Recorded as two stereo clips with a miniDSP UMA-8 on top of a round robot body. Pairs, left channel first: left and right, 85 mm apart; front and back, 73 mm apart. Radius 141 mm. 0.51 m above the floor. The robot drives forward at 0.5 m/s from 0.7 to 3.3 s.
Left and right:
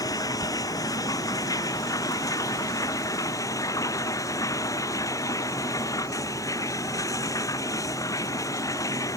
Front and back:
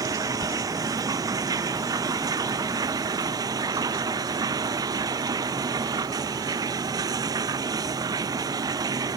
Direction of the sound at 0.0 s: 140° left.